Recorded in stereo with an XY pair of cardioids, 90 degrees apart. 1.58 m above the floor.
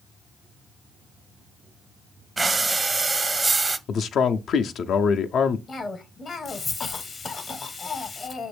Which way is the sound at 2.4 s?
25° right.